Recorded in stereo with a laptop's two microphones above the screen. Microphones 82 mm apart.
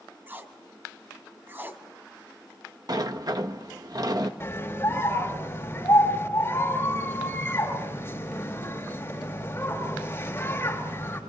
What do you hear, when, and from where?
0.3 s tape being pulled: 25° right (ahead or behind), 1.5 m
2.9 s a sliding door: 50° right (ahead or behind), 1.2 m
4.4 s a scream: 30° left (ahead or behind), 3.5 m